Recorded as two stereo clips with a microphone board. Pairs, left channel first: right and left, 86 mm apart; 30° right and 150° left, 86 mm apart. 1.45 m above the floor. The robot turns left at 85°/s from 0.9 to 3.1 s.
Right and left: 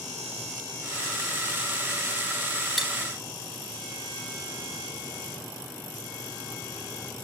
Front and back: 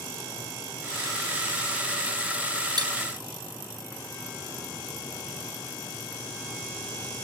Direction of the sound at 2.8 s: Straight behind.